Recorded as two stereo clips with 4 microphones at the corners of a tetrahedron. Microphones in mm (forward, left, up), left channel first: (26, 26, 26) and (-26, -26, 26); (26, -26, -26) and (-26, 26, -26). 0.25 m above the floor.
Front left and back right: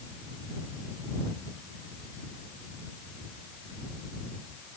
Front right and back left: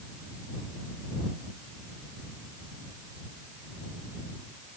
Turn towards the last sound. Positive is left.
No sound to turn to.